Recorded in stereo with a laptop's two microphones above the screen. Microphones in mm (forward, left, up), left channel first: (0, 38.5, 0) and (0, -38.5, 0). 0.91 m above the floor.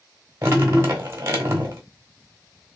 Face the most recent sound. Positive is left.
turn(degrees=-30)  # may be behind; listen again after turning